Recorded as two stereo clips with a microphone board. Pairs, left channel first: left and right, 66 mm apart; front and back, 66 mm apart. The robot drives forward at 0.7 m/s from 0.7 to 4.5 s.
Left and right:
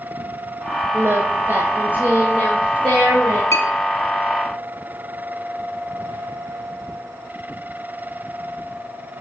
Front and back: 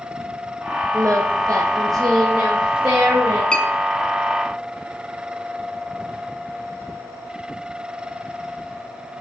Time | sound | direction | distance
0.9 | singing | 140° right | 1.5 m
3.5 | a clink | 70° left | 0.9 m